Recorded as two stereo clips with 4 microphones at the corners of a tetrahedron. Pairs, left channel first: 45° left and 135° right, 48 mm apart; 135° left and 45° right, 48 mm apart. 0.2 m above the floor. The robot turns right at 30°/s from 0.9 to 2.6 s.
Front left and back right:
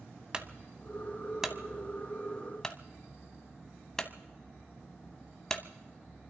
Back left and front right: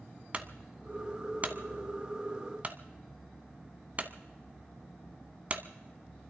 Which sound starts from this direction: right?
A clunk, at 0.3 s.